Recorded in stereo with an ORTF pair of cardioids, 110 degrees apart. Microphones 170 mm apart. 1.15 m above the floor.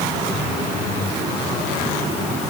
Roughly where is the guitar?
No guitar in this recording.